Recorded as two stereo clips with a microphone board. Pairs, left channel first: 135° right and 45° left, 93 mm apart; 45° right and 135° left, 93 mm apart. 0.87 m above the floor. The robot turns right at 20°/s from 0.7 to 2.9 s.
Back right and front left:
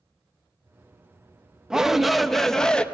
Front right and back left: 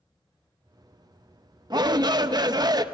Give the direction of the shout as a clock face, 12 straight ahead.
8 o'clock.